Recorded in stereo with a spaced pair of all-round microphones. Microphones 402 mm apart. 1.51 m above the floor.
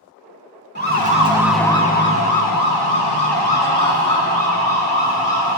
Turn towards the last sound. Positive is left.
turn(degrees=75)  # may be behind; listen again after turning